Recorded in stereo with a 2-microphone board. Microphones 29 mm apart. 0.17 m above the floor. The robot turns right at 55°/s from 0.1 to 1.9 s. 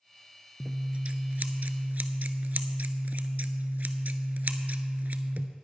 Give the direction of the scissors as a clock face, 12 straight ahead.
5 o'clock.